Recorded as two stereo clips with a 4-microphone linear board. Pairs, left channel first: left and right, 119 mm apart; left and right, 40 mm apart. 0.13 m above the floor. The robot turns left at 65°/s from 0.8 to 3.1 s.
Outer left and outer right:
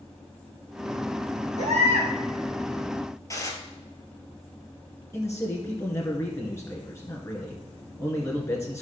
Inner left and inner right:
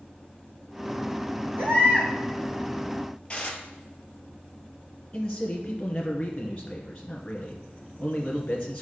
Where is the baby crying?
100° right, 3.5 m; by 2.1 s 135° right, 3.5 m.